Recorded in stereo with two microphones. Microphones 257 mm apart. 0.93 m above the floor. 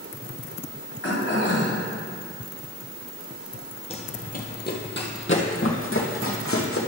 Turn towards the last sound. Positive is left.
turn(degrees=60)  # may be behind; listen again after turning